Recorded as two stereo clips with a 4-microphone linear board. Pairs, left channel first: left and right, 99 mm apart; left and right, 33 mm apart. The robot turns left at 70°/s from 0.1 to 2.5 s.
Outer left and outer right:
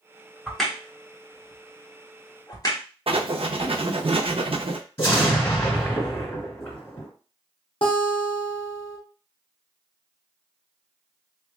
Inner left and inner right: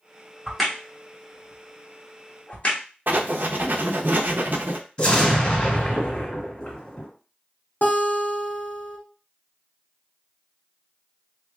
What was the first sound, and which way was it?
A crack, 5° right (ahead or behind).